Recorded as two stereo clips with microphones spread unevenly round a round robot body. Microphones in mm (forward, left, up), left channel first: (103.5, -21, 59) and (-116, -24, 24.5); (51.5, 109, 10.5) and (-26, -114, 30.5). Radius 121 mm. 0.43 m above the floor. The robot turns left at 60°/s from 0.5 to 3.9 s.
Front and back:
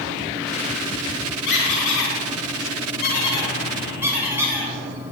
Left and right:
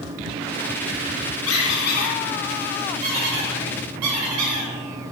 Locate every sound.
1.5 s a squeak: 45° left, 3 m; by 4.7 s 100° right, 3 m